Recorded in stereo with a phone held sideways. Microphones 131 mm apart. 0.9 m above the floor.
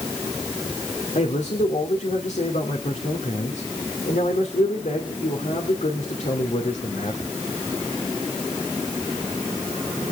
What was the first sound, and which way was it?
A man speaking, 75° left (ahead or behind).